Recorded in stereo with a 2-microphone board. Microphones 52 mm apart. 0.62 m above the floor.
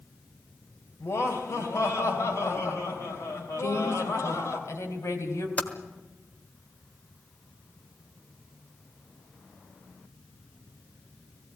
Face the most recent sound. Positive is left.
turn(degrees=30)  # may be behind; listen again after turning